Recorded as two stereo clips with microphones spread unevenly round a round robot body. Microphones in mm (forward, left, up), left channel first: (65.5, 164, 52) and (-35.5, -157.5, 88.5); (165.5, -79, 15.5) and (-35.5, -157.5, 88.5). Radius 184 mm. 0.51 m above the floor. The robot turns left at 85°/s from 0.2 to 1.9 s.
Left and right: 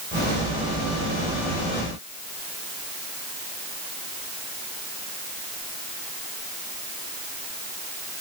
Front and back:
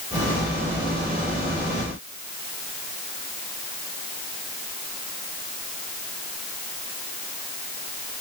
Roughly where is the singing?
I don't hear singing.